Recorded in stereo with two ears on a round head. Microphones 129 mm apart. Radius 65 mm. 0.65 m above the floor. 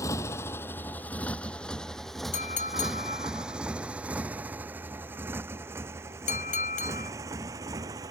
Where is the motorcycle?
20° left (ahead or behind); by 8.1 s 25° right (ahead or behind).